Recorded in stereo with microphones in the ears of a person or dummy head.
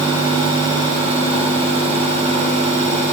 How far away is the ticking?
I don't hear ticking.